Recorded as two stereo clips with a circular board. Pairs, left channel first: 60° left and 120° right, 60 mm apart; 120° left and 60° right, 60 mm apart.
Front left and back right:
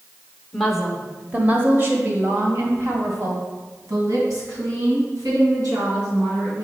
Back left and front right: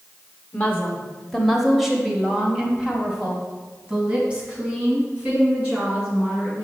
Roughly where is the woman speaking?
Behind left.